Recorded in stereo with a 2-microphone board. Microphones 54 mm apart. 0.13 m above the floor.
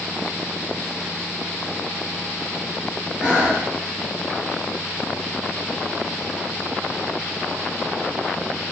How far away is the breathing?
About 1.0 m.